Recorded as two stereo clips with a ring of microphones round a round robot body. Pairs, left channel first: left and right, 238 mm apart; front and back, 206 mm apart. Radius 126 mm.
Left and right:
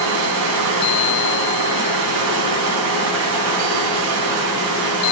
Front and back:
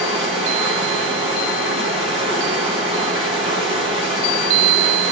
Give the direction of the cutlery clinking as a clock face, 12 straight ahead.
No cutlery clinking in this recording.